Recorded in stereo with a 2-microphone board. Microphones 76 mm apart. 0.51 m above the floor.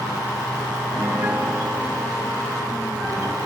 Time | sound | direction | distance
0.9 | a piano | 20° right (ahead or behind) | 3.5 m